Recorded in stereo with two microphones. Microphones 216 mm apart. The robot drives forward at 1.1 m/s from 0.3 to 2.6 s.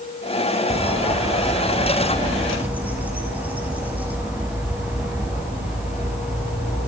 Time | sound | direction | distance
0.7 | a bird | 20° right (ahead or behind) | 0.9 m